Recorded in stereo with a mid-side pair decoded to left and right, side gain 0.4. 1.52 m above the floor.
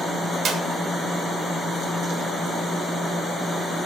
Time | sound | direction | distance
0.5 | a clap | 65° right | 3 m